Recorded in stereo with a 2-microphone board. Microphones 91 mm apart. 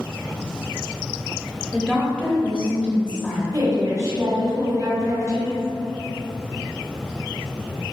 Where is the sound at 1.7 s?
10° left (ahead or behind), 0.9 m.